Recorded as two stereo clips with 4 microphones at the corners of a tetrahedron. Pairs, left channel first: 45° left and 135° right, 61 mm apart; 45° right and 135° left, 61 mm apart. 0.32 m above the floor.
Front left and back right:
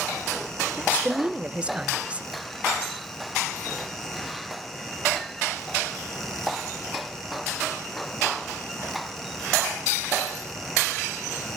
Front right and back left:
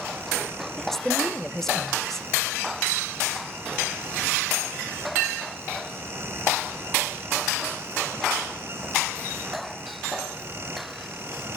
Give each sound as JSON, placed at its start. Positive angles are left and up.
{"t": 0.8, "sound": "a woman speaking", "azimuth_deg": -115, "distance_m": 1.0}